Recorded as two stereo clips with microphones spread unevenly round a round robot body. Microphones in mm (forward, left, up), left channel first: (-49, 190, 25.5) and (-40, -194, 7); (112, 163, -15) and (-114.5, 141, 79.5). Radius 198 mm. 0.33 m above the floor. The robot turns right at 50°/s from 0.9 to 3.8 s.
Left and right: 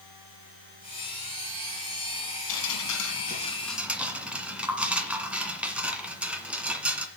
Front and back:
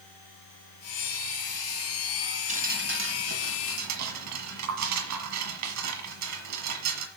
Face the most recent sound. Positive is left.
turn(degrees=-175)